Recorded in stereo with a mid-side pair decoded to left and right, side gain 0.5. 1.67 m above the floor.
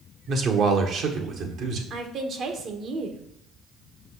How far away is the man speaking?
About 1.3 m.